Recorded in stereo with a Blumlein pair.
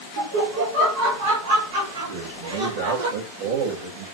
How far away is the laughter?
About 0.8 m.